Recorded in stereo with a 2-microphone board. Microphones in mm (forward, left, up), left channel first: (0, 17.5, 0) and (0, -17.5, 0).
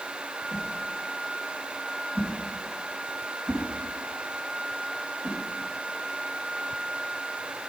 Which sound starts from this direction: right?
A whoosh, at 0.5 s.